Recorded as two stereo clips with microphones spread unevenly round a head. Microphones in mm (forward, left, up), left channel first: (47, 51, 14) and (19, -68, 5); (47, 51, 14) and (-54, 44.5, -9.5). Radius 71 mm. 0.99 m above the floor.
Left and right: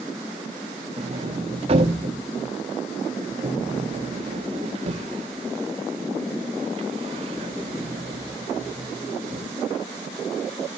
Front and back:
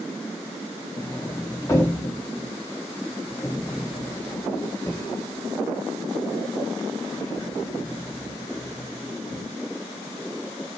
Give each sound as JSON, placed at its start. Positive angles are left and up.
{"t": 1.0, "sound": "a sliding door", "azimuth_deg": -70, "distance_m": 1.9}